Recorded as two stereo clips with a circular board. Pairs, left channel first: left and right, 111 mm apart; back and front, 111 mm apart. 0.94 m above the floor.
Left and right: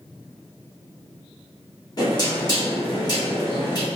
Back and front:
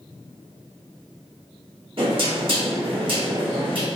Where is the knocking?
40° left, 1.3 m.